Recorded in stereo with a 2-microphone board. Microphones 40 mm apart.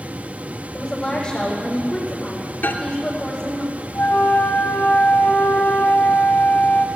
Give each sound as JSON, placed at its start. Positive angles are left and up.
{"t": 0.7, "sound": "a woman speaking", "side_deg": 15, "distance_m": 7.5}
{"t": 2.6, "sound": "a microwave", "side_deg": 55, "distance_m": 2.5}
{"t": 4.0, "sound": "a flute", "side_deg": 65, "distance_m": 2.0}